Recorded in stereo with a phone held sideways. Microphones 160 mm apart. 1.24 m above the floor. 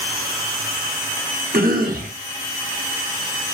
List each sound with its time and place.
1.5 s a cough: 65° right (ahead or behind), 1.0 m